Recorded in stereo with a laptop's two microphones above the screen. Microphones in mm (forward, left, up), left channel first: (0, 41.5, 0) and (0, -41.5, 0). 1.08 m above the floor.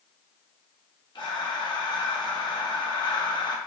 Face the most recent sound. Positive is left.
turn(degrees=60)  # may be behind; listen again after turning